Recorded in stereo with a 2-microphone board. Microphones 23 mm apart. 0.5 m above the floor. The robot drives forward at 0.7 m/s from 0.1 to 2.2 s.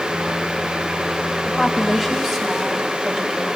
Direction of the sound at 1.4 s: 15° right (ahead or behind).